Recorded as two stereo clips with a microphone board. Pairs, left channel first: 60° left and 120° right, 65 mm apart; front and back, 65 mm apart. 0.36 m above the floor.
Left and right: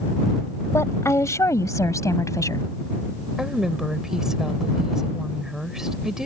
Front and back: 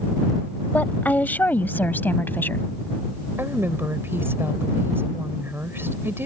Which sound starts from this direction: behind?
A woman speaking, at 3.4 s.